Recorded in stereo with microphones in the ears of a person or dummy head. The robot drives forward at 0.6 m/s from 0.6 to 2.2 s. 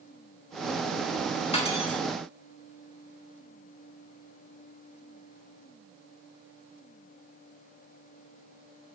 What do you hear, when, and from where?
1.5 s cutlery clinking: 35° left (ahead or behind), 3.5 m; by 2.0 s 30° left (ahead or behind), 3.5 m